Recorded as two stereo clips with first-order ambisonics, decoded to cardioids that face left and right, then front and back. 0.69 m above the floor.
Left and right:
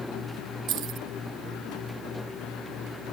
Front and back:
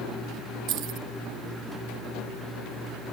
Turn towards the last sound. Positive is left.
turn(degrees=-135)